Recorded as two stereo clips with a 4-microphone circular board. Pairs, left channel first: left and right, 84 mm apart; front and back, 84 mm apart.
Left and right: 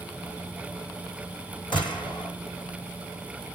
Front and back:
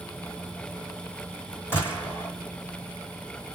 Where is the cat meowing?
No cat meowing in this recording.